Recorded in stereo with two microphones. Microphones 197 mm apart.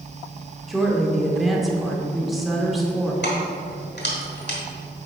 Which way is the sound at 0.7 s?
Centre (ahead or behind).